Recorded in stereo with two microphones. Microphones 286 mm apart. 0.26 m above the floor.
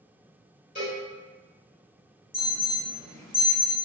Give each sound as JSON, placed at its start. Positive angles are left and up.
{"t": 0.8, "sound": "a cowbell", "side_deg": 30, "distance_m": 1.7}
{"t": 2.3, "sound": "an alarm", "side_deg": 10, "distance_m": 1.6}